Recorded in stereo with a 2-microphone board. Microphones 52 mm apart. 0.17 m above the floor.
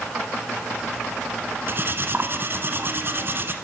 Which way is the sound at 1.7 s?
45° right (ahead or behind).